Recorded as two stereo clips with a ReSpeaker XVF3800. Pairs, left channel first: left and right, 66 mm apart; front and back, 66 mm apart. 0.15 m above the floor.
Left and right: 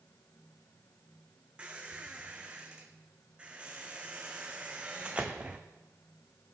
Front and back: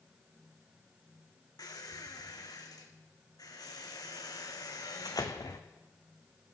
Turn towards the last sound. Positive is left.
turn(degrees=-20)